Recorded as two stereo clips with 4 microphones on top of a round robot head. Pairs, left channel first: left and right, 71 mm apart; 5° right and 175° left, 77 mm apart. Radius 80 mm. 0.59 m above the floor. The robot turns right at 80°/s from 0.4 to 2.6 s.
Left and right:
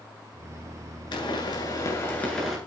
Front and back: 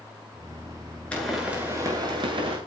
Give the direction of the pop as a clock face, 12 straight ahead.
10 o'clock.